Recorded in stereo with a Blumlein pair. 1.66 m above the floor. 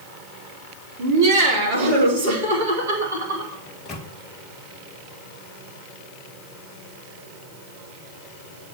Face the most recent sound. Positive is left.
turn(degrees=25)